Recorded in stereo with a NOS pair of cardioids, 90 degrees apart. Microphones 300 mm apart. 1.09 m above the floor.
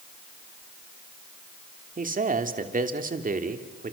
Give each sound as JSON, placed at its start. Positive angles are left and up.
{"t": 2.0, "sound": "a man speaking", "azimuth_deg": -25, "distance_m": 3.0}